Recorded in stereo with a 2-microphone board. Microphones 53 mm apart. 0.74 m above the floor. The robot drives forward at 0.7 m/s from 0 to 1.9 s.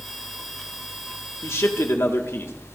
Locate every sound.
1.4 s a man speaking: 60° left (ahead or behind), 1.6 m; by 2.5 s 55° left (ahead or behind), 1.7 m